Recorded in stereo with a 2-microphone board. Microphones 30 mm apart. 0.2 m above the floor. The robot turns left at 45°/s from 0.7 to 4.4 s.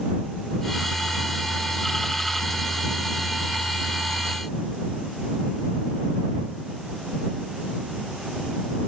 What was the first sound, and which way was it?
Only background noise.